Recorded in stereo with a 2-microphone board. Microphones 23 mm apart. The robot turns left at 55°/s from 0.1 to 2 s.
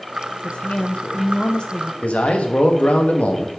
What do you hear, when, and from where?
0.4 s a woman speaking: 120° left, 0.6 m; by 1.9 s 35° left, 0.6 m
2.0 s a man speaking: 80° left, 1.2 m